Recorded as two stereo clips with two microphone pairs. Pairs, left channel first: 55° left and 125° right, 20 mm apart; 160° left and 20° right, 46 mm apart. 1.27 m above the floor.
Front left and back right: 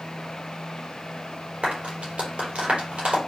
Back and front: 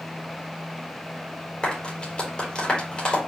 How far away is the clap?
About 4.5 m.